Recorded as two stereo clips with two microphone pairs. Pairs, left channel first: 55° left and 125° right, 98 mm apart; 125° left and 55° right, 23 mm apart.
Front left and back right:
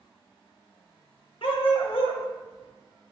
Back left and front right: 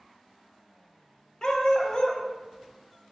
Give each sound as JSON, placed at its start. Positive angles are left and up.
{"t": 1.4, "sound": "a dog barking", "azimuth_deg": 75, "distance_m": 0.6}